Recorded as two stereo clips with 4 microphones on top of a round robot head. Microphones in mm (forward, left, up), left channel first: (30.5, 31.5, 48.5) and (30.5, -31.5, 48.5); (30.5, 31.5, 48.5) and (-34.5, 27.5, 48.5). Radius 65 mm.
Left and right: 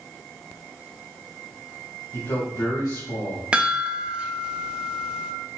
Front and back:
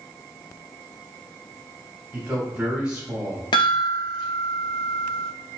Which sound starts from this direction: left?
A man speaking, at 2.1 s.